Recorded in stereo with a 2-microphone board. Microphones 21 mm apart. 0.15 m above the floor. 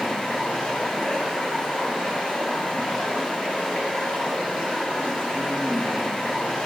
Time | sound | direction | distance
0.0 | running water | 70° left (ahead or behind) | 8 m